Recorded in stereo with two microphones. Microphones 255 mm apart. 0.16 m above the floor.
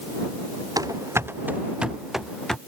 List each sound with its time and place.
0.8 s running footsteps: 15° right (ahead or behind); by 2.6 s 5° left (ahead or behind)